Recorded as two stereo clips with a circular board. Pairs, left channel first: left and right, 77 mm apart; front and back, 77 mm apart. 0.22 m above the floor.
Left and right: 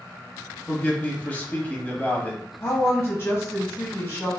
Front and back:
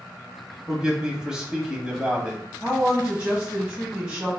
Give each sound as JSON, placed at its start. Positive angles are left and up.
{"t": 0.7, "sound": "a man speaking", "azimuth_deg": 120, "distance_m": 1.0}
{"t": 2.6, "sound": "a woman speaking", "azimuth_deg": 115, "distance_m": 1.2}